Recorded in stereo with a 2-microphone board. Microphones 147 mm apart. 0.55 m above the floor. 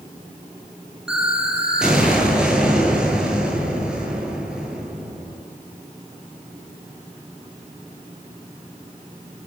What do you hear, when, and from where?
1.1 s an explosion: 5° right (ahead or behind), 8.5 m